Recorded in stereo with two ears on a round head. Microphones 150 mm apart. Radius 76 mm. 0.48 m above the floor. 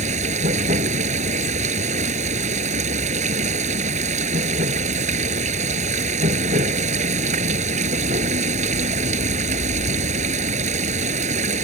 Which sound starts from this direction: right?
Running water, at 0.0 s.